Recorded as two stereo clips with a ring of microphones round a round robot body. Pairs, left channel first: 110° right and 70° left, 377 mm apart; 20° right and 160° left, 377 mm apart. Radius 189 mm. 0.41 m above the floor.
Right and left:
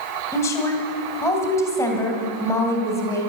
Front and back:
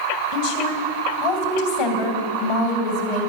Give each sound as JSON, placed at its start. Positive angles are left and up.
{"t": 0.3, "sound": "a woman speaking", "azimuth_deg": -30, "distance_m": 2.5}